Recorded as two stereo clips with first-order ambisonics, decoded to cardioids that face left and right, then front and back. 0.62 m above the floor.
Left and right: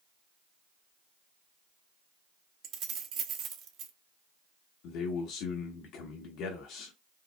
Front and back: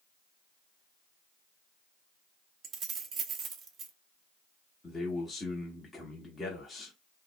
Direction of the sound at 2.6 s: 130° right.